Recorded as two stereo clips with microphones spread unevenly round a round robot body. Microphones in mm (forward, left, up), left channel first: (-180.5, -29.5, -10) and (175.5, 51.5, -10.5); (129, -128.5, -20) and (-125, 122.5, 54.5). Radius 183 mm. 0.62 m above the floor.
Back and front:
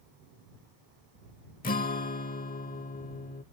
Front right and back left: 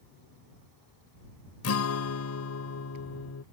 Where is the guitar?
95° right.